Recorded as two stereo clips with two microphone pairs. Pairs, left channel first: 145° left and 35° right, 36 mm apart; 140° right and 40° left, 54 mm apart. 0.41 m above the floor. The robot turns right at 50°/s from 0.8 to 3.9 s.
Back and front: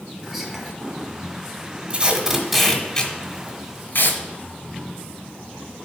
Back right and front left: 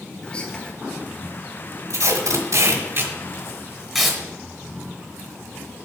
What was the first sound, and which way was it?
Whispering, 110° right.